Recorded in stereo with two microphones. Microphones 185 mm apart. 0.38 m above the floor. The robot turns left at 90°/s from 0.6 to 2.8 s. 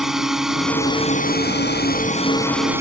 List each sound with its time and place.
0.0 s a drone: 175° right; by 2.8 s 15° right